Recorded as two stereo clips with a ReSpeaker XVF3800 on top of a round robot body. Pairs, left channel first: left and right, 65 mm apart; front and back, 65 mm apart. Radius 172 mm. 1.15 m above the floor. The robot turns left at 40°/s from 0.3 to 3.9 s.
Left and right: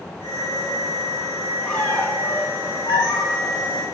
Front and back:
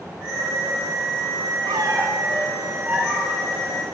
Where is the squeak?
175° left, 3 m; by 3.9 s 85° left, 3 m.